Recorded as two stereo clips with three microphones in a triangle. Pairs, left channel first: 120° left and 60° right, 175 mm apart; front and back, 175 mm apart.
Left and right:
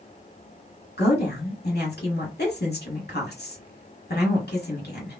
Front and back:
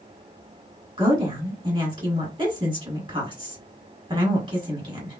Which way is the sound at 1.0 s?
120° left.